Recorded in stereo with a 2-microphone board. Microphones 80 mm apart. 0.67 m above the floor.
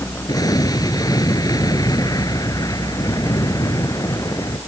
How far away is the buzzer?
I don't hear a buzzer.